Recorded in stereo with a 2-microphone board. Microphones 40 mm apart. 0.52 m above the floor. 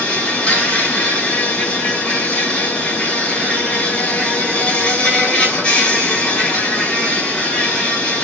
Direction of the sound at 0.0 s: 25° left (ahead or behind).